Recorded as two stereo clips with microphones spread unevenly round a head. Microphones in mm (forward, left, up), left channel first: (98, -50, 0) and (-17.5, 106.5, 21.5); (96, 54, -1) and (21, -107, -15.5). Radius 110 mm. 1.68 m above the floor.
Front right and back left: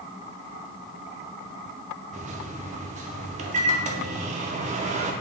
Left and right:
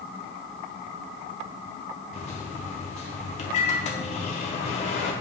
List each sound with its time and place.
2.1 s a microwave: 95° left, 0.6 m